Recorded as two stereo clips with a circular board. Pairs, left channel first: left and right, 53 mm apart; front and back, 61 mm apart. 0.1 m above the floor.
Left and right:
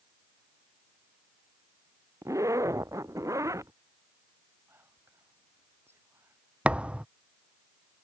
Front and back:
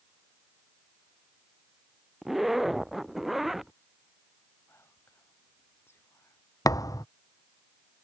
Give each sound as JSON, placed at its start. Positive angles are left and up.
{"t": 2.2, "sound": "a zipper", "azimuth_deg": -95}
{"t": 4.7, "sound": "whispering", "azimuth_deg": -50}
{"t": 6.7, "sound": "a thud", "azimuth_deg": -20}